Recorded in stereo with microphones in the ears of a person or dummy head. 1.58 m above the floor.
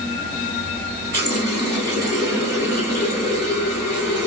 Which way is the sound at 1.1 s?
20° right (ahead or behind).